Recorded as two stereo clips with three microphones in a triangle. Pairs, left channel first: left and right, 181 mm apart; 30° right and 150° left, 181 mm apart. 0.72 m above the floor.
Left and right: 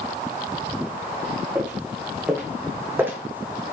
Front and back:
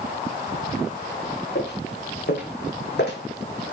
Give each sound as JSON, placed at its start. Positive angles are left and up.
{"t": 1.6, "sound": "footsteps", "azimuth_deg": -15, "distance_m": 4.5}